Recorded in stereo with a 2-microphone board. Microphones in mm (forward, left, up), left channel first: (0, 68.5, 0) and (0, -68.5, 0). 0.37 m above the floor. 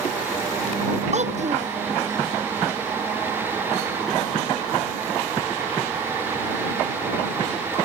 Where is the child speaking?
55° right (ahead or behind).